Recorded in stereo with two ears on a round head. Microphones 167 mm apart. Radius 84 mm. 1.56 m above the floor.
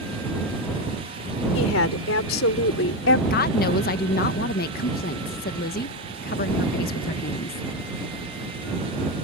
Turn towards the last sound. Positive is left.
turn(degrees=55)  # may be behind; listen again after turning